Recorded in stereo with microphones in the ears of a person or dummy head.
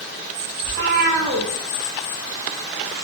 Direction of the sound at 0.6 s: 55° right (ahead or behind).